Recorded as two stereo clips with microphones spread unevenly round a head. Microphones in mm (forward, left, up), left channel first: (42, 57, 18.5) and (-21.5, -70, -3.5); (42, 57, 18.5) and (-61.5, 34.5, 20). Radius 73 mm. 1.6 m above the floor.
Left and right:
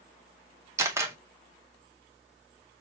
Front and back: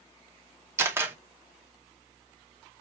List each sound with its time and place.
0.8 s a camera shutter: straight behind, 0.8 m